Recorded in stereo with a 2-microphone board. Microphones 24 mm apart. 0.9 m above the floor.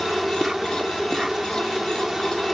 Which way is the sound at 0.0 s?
20° right (ahead or behind).